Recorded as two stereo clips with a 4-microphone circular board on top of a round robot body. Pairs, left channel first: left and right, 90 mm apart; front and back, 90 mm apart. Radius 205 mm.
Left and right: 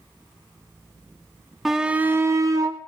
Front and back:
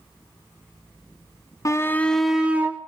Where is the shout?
5° right, 1.2 m; by 2.8 s 120° right, 1.5 m.